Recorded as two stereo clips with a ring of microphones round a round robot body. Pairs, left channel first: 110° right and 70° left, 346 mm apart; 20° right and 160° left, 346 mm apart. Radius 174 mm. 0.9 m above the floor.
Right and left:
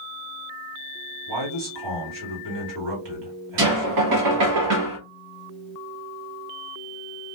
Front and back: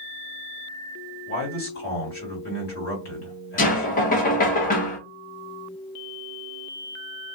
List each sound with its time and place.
1.3 s a man speaking: 40° left, 1.8 m
3.6 s knocking: 40° left, 0.8 m